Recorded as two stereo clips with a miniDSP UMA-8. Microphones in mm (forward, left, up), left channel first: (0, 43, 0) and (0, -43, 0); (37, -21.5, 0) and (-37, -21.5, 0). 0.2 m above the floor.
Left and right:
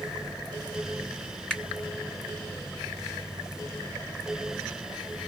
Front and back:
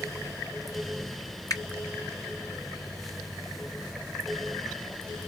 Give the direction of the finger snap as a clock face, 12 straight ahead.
11 o'clock.